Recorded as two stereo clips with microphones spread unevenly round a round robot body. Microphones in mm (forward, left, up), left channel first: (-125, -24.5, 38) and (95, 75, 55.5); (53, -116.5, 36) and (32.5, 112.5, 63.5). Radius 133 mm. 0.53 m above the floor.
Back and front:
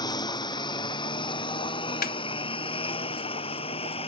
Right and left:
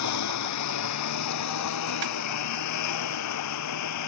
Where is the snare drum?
145° left.